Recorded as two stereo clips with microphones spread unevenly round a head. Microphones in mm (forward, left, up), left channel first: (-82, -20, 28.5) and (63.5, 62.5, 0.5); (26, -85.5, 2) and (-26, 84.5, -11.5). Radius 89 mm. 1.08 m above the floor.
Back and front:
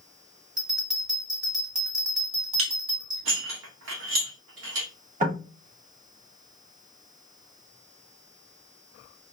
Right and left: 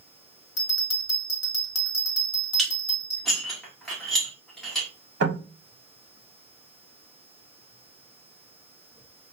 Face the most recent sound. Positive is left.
turn(degrees=75)